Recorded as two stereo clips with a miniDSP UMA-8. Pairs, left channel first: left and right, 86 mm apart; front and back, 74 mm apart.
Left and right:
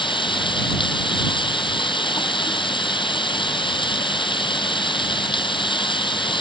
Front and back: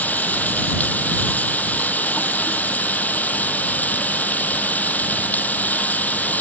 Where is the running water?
70° left.